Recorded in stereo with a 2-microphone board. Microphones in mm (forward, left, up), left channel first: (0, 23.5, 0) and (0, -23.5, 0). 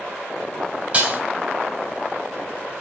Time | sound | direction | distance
0.9 | dishes clattering | 30° right (ahead or behind) | 3 m